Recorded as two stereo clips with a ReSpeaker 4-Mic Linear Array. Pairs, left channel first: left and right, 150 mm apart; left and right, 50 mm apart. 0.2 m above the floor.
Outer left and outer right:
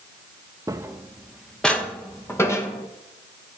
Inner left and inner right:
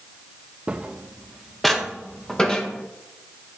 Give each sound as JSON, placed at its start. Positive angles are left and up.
{"t": 0.7, "sound": "footsteps", "side_deg": -20, "distance_m": 1.2}